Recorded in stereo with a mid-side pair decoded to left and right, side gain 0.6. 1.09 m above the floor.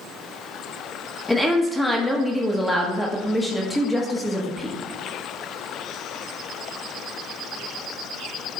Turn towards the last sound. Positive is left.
turn(degrees=5)